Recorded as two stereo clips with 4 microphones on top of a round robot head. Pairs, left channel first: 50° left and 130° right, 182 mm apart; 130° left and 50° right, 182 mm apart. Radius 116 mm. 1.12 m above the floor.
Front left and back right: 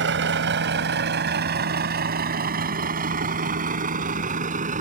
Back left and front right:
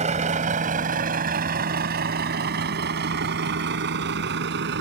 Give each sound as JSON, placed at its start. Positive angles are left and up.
{"t": 0.0, "sound": "a vehicle", "azimuth_deg": -105}